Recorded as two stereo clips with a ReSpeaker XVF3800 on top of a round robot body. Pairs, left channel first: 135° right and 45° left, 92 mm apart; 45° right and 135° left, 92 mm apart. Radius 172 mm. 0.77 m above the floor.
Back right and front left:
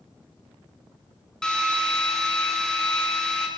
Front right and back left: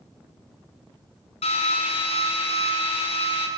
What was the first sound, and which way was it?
A drill, 50° right.